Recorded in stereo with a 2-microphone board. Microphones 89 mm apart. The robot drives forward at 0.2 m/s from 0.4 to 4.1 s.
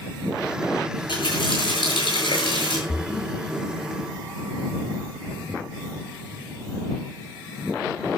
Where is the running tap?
65° left (ahead or behind), 7 m.